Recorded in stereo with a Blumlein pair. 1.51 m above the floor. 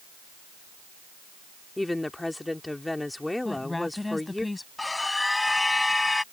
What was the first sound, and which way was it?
A woman speaking, 5° left.